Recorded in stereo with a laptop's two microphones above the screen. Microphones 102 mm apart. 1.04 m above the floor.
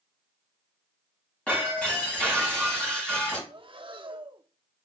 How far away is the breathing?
About 0.9 m.